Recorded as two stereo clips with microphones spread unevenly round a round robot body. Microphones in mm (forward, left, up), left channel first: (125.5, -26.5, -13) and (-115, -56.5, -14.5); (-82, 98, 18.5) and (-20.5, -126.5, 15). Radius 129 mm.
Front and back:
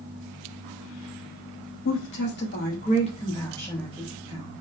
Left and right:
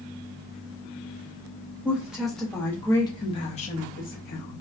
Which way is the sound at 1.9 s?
5° left.